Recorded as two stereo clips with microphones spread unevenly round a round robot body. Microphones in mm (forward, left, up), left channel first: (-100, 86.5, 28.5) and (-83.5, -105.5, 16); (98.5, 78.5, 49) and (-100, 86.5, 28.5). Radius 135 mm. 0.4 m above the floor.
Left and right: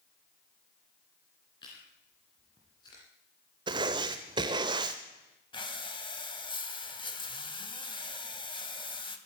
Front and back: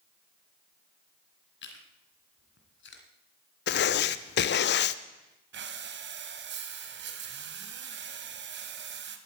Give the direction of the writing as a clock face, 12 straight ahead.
1 o'clock.